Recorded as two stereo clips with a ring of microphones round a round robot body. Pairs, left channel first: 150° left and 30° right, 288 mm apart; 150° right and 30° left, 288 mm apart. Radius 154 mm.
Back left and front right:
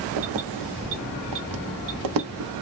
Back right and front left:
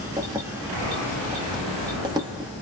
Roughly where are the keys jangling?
Ahead right.